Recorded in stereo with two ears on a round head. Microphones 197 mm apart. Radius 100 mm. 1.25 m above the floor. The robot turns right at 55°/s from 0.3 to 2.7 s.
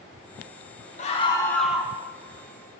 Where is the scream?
140° left, 1.3 m; by 1.9 s 165° right, 1.3 m.